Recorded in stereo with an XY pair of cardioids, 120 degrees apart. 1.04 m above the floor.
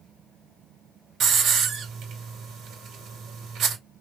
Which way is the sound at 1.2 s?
60° right.